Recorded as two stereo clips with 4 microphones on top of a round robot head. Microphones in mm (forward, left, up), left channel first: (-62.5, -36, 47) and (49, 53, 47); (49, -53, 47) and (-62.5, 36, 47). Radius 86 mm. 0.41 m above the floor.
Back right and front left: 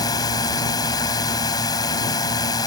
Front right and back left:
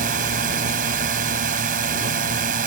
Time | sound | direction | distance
0.0 | a drone | 155° left | ?